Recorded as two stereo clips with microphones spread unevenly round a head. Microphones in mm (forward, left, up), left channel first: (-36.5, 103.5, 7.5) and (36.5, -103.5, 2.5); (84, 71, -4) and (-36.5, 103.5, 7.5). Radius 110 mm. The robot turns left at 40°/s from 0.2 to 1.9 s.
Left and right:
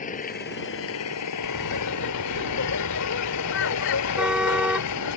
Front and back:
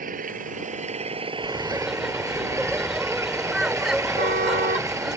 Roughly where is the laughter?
Left.